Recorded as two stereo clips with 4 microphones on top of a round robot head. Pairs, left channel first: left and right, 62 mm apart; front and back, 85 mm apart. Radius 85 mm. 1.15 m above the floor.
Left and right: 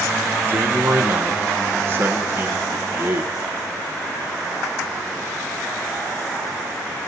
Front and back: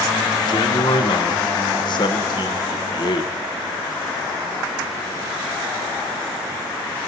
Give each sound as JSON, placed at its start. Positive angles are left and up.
{"t": 0.5, "sound": "a man speaking", "azimuth_deg": -35, "distance_m": 0.8}